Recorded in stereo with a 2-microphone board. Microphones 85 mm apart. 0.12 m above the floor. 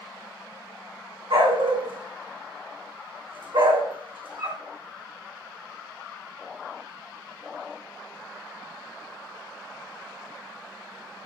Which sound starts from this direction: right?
A dog barking, at 1.3 s.